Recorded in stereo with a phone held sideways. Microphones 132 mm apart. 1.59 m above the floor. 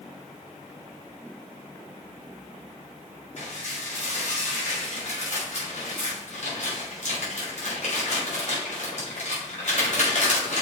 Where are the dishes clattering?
60° left (ahead or behind), 4.5 m.